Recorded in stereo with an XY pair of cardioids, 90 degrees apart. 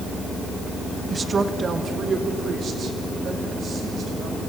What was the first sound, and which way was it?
A woman speaking, 30° right.